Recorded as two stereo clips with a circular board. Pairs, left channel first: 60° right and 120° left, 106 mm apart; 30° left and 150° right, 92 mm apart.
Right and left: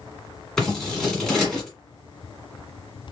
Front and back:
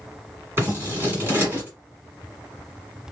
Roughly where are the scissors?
Behind right.